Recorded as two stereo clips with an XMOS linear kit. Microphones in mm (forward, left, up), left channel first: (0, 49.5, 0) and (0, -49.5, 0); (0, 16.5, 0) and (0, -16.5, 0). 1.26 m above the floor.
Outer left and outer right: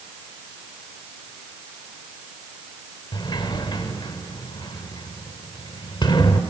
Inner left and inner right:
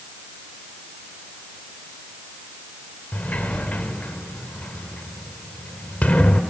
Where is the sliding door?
50° left (ahead or behind), 1.5 m.